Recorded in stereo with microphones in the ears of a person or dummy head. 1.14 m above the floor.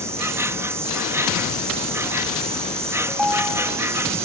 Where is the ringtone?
10° right (ahead or behind).